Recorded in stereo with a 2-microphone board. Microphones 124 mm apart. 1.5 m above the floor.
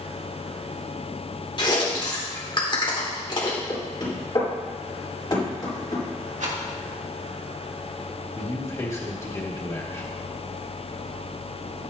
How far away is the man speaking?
About 2.0 m.